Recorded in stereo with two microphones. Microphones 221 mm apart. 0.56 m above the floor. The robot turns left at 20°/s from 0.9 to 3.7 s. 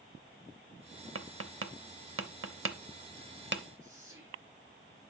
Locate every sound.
1.1 s tapping: 70° right (ahead or behind), 0.7 m; by 3.6 s 55° right (ahead or behind), 0.7 m
3.8 s whispering: 60° right (ahead or behind), 7 m